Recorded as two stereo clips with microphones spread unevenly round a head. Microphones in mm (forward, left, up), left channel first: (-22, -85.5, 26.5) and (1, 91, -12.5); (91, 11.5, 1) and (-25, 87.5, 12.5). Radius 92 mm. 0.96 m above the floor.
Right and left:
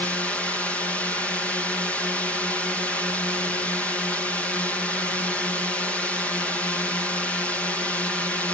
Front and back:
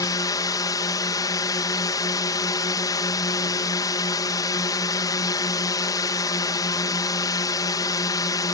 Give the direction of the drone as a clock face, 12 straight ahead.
12 o'clock.